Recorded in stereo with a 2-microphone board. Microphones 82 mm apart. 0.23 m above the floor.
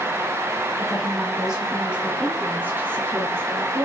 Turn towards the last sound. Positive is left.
turn(degrees=-35)  # may be behind; listen again after turning